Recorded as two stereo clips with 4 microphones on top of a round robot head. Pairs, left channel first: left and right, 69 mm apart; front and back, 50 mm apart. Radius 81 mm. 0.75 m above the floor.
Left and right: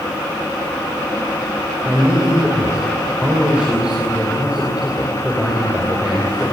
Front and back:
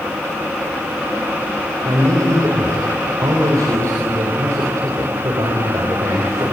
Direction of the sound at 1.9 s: 170° right.